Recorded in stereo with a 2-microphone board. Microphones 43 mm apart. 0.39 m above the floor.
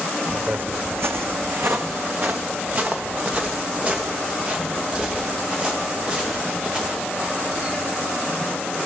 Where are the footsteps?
40° right (ahead or behind), 1.0 m; by 7.8 s 20° right (ahead or behind), 7 m.